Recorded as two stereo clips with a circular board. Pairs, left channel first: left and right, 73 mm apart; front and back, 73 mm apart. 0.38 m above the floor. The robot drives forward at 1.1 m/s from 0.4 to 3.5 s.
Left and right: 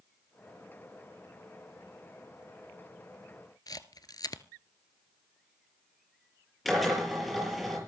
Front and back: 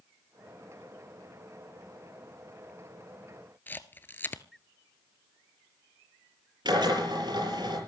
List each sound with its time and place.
3.7 s a camera shutter: 65° left, 1.1 m
6.7 s a drill: straight behind, 6.5 m